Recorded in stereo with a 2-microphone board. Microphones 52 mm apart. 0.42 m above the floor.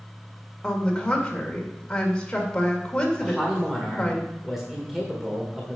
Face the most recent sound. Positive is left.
turn(degrees=-5)  # may be behind; listen again after turning